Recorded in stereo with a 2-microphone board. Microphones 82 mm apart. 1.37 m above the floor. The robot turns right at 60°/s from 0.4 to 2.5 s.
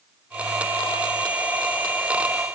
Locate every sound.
Only background noise.